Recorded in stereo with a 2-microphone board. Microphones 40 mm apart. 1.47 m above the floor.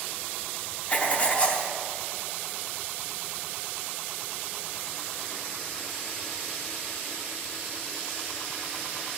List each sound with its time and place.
0.9 s writing: 30° left (ahead or behind), 0.9 m